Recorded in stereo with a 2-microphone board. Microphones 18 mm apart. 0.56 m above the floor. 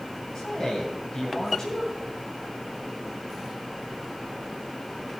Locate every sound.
0.3 s a man speaking: 25° left (ahead or behind), 2.5 m